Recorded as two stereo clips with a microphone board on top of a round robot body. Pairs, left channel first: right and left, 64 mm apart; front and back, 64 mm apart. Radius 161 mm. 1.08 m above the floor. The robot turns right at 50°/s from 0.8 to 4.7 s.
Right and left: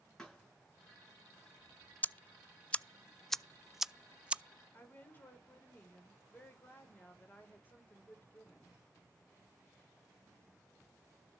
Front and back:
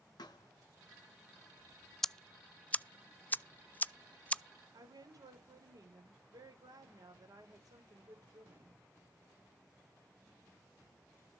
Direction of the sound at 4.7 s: 155° right.